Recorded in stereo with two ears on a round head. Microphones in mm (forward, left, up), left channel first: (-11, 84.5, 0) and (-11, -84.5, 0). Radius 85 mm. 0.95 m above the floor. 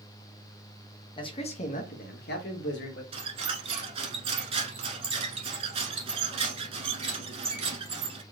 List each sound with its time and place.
1.2 s a man speaking: 25° left (ahead or behind), 1.2 m; by 3.0 s 65° left (ahead or behind), 1.7 m
3.1 s a squeak: 30° right (ahead or behind), 1.1 m